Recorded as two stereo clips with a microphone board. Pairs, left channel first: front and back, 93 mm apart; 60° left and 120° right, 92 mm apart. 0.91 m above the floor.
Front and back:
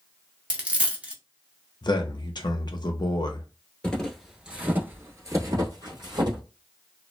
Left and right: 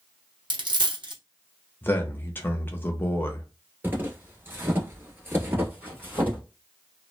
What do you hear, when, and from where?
0.5 s a dropped coin: 105° right, 0.6 m
1.8 s a man speaking: 5° right, 0.6 m
3.8 s footsteps: 70° right, 1.0 m; by 6.4 s 170° left, 1.5 m